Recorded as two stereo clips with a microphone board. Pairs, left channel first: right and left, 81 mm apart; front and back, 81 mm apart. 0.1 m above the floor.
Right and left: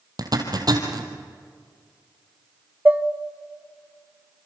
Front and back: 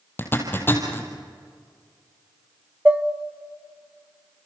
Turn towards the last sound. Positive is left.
turn(degrees=130)